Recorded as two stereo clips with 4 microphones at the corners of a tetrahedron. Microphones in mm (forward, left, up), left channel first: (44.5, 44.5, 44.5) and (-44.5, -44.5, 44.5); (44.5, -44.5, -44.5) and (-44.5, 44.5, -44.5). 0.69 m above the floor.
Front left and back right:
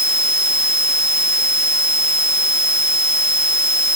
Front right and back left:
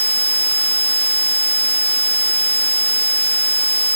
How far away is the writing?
No writing in this recording.